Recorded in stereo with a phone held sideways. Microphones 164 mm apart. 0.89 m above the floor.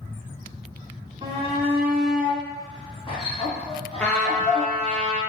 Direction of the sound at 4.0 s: 5° left (ahead or behind).